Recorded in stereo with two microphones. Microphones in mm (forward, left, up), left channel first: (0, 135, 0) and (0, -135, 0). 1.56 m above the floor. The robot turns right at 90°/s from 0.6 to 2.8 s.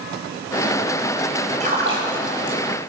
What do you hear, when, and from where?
1.6 s a splash: 25° right (ahead or behind), 3.5 m; by 2.6 s 60° right (ahead or behind), 3.5 m